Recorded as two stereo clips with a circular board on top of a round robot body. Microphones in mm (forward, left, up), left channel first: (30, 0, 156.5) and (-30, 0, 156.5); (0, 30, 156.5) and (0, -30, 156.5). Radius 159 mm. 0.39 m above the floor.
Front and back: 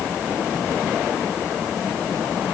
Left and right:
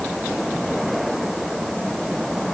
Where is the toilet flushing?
No toilet flushing in this recording.